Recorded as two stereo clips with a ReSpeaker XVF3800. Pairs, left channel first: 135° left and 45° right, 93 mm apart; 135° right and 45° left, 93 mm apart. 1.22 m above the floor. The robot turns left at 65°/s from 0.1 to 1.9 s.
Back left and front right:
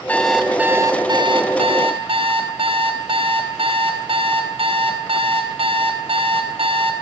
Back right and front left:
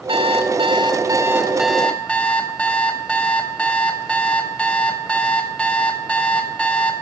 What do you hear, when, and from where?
0.1 s an alarm clock: 60° left, 3.5 m; by 6.9 s 55° right, 3.5 m